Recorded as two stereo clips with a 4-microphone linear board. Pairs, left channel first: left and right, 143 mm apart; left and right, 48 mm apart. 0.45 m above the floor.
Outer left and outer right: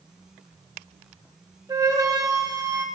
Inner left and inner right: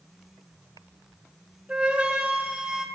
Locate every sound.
1.7 s a flute: 25° right (ahead or behind), 2.0 m